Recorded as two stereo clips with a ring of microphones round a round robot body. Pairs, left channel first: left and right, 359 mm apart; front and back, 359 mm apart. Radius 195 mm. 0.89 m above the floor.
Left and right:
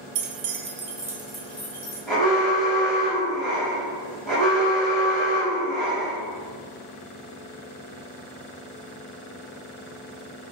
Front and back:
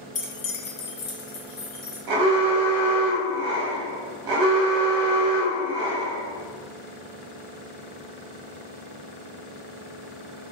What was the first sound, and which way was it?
Keys jangling, 75° right.